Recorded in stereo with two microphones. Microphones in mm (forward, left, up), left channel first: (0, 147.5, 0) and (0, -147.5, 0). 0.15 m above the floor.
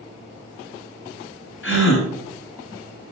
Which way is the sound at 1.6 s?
45° left (ahead or behind).